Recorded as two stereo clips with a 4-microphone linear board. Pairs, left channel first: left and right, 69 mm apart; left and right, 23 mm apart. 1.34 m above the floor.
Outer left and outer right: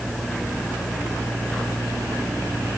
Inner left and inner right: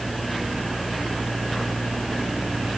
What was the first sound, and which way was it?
Only background noise.